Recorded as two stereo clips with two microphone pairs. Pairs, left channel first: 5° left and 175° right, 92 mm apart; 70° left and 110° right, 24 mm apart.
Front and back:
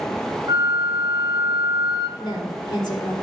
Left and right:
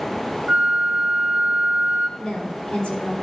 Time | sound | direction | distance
0.5 | a flute | 155° right | 1.9 m
2.2 | a woman speaking | 45° left | 3 m